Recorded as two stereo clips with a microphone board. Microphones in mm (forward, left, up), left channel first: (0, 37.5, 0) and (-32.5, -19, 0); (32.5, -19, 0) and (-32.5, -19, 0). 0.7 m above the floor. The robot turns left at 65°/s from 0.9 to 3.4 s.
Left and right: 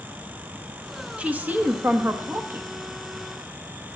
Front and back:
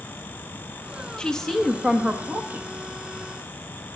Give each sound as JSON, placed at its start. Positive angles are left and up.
{"t": 1.2, "sound": "a woman speaking", "azimuth_deg": -65, "distance_m": 0.9}